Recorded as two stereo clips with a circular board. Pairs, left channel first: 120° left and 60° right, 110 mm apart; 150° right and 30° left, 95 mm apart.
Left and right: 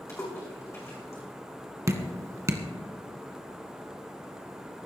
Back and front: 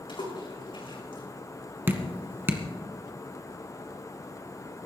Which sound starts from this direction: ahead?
Dripping, at 1.9 s.